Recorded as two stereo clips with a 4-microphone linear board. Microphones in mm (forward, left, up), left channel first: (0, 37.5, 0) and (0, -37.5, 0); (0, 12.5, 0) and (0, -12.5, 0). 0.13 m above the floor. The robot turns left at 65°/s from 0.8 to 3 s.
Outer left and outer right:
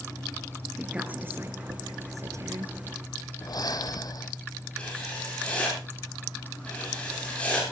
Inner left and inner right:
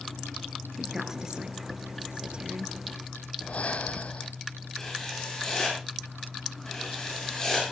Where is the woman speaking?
10° right (ahead or behind), 2.0 m; by 2.7 s 30° right (ahead or behind), 2.0 m.